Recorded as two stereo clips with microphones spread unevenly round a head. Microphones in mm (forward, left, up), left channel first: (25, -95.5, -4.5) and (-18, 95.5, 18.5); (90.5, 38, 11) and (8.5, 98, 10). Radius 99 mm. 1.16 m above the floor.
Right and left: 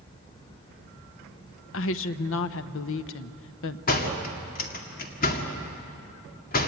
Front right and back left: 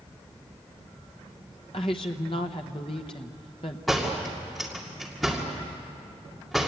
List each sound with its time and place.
1.7 s a woman speaking: 95° right, 0.8 m
3.9 s a door slam: 125° right, 2 m